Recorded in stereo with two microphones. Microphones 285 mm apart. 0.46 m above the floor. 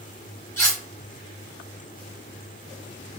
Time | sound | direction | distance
0.6 | cutlery clinking | 10° left (ahead or behind) | 1.5 m